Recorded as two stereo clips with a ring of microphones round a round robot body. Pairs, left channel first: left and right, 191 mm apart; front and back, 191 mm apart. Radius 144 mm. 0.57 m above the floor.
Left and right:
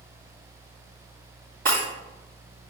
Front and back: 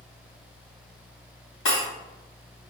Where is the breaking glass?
30° right, 2 m.